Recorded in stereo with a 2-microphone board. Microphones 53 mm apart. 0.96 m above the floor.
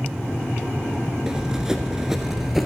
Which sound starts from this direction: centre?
Running footsteps, at 1.3 s.